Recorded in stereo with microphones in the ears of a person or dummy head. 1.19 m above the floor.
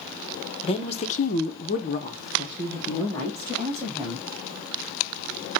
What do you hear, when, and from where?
0.6 s a woman speaking: 30° left (ahead or behind), 0.8 m; by 4.2 s 5° left (ahead or behind), 1.8 m